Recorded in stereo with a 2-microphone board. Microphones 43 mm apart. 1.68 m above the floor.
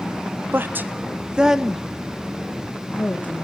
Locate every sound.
0.5 s a woman speaking: 60° right (ahead or behind), 1.3 m; by 3.4 s 40° left (ahead or behind), 2 m